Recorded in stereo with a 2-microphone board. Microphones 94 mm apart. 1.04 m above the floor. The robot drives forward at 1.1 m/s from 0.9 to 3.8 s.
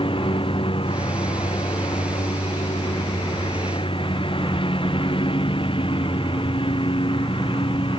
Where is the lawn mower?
90° left; by 8.0 s 80° left.